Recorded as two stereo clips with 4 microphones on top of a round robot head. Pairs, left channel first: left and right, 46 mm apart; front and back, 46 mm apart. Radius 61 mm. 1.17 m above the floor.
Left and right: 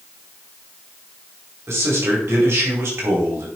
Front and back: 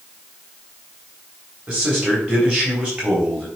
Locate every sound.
1.7 s a man speaking: 115° right, 4.5 m